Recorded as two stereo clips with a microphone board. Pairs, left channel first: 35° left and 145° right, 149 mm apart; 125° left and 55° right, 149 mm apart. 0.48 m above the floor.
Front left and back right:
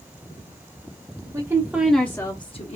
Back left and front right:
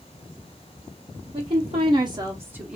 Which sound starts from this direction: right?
A woman speaking, at 1.3 s.